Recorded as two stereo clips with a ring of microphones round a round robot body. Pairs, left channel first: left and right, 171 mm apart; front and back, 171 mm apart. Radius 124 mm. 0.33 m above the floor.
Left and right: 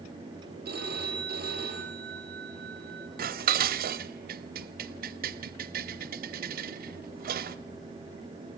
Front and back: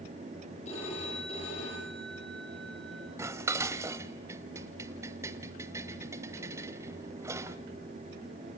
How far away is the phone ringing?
About 10 m.